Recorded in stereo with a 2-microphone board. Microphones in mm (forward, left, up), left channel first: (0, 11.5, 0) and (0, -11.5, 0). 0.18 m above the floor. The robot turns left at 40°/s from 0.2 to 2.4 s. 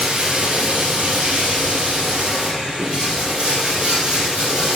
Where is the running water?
55° right, 3 m; by 4.8 s 145° right, 3 m.